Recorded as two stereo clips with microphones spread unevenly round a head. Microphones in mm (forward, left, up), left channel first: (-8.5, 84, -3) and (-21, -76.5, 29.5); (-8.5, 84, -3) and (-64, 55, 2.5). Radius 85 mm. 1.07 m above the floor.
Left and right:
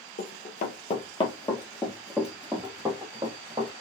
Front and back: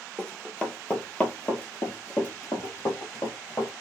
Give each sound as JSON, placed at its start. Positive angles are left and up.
{"t": 0.2, "sound": "running footsteps", "azimuth_deg": 110, "distance_m": 1.3}